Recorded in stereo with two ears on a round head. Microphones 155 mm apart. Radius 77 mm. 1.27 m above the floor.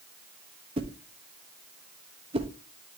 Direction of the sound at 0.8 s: 35° right (ahead or behind).